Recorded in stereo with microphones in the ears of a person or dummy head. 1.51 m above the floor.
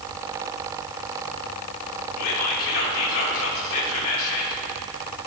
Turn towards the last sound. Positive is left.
turn(degrees=75)  # may be behind; listen again after turning